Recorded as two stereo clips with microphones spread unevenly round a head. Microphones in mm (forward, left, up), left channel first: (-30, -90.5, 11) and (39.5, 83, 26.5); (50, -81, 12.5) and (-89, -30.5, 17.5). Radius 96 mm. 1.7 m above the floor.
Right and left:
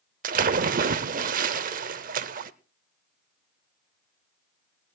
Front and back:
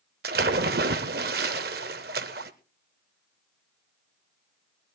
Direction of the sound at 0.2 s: 115° left.